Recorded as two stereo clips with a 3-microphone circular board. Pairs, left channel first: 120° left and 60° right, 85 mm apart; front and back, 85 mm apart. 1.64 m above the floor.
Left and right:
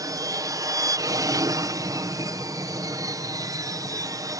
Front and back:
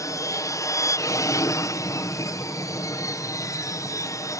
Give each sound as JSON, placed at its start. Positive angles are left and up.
{"t": 0.0, "sound": "an aircraft", "azimuth_deg": -35}